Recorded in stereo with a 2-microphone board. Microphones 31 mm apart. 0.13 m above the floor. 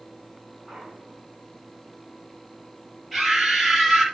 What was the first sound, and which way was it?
A clunk, 15° left (ahead or behind).